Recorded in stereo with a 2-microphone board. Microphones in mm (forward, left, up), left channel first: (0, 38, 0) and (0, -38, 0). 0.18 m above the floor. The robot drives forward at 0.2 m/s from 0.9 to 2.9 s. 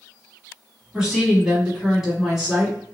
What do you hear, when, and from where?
0.9 s a woman speaking: 5° right (ahead or behind), 1.3 m